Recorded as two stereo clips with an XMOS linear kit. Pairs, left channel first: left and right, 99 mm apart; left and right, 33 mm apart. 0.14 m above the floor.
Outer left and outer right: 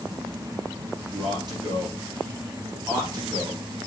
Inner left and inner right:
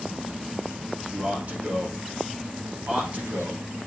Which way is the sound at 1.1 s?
45° right (ahead or behind).